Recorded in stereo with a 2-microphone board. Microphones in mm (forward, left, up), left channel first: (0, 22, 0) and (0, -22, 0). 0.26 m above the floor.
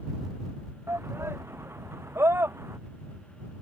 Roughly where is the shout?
Right.